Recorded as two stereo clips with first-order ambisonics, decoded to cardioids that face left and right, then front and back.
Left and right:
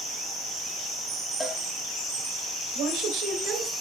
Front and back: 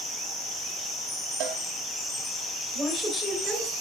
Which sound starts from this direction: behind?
A cowbell, at 1.4 s.